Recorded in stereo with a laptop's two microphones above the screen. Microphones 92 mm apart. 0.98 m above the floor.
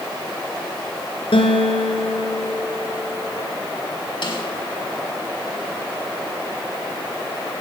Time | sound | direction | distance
1.3 | a guitar | 75° left (ahead or behind) | 5.5 m
4.2 | a snare drum | 60° left (ahead or behind) | 6 m